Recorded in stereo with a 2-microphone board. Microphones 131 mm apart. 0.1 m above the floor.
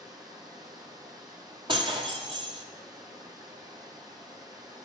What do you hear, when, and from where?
0.0 s running water: 35° right (ahead or behind), 3 m
1.7 s breaking glass: 45° right (ahead or behind), 1.9 m